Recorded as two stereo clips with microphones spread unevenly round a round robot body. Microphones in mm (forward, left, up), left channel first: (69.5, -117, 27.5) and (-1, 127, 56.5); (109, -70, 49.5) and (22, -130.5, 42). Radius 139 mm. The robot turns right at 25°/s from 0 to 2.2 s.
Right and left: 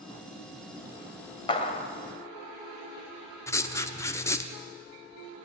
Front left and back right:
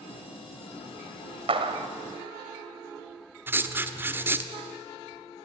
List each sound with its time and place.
1.5 s a clap: 140° right, 2 m; by 1.9 s 130° right, 2 m
3.5 s writing: 120° right, 1.4 m